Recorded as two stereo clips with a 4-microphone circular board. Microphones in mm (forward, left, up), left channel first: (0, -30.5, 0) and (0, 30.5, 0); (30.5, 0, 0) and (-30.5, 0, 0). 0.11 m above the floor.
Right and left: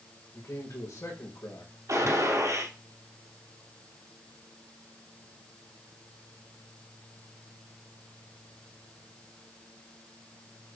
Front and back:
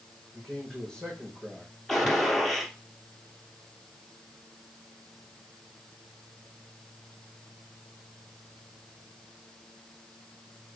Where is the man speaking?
70° right, 5 m.